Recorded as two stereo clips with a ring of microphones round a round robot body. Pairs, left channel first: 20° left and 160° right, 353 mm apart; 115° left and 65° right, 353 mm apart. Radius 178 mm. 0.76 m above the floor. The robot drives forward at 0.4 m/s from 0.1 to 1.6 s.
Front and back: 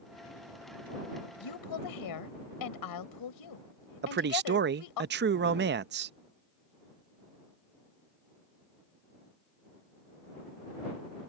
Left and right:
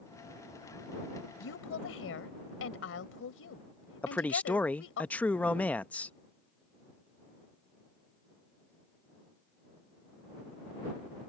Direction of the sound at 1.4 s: 55° left.